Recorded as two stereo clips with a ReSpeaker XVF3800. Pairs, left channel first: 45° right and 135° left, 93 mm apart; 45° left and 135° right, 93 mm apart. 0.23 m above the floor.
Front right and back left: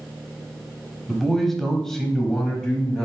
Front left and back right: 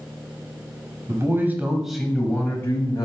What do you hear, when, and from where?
1.1 s a man speaking: 130° right, 1.2 m; by 3.0 s 35° left, 1.2 m